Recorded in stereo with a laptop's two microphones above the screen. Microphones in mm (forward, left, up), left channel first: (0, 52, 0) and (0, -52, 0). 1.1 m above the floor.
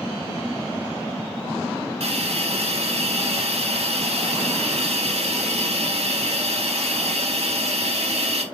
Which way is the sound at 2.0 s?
75° right (ahead or behind).